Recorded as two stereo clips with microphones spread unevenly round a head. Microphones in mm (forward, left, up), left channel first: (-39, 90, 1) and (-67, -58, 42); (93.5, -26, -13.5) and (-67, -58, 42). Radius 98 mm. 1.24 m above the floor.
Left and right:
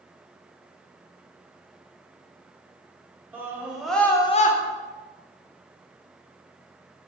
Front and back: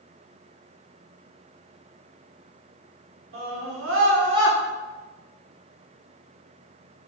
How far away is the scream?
About 1.8 m.